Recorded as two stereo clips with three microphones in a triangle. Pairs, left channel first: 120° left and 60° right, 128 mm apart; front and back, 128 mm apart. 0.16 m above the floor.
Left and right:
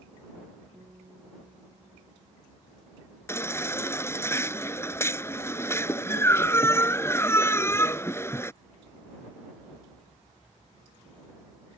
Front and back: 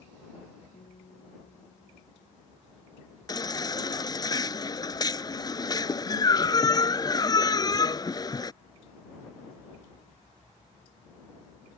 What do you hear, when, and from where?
0.7 s a guitar: straight ahead
3.3 s a baby crying: 55° left